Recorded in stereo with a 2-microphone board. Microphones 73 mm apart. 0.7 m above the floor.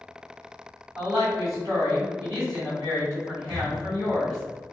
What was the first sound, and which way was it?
A woman speaking, 60° right (ahead or behind).